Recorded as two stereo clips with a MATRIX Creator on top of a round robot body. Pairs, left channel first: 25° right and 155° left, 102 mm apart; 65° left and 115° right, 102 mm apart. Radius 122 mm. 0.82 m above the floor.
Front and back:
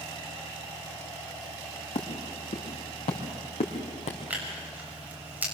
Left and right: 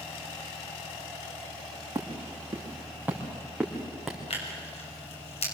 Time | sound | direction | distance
1.9 | footsteps | 50° right | 4.5 m
4.3 | tearing paper | 85° left | 6 m